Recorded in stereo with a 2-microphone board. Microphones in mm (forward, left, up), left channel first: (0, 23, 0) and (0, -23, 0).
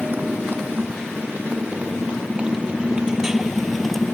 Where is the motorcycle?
45° right (ahead or behind); by 4.1 s 5° left (ahead or behind).